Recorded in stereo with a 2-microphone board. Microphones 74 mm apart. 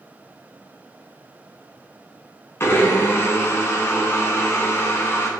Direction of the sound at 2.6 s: 35° left (ahead or behind).